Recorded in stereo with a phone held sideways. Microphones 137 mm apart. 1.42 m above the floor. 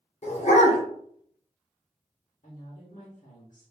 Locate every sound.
0.2 s a dog barking: 55° left (ahead or behind), 1.5 m
2.4 s a woman speaking: 75° left (ahead or behind), 1.3 m